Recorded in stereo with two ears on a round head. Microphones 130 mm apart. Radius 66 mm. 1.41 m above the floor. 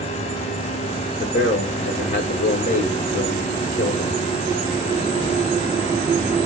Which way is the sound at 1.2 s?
55° left (ahead or behind).